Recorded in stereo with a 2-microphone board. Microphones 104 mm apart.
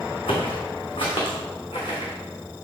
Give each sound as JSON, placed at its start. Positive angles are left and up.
{"t": 0.3, "sound": "footsteps", "side_deg": 65, "distance_m": 2.0}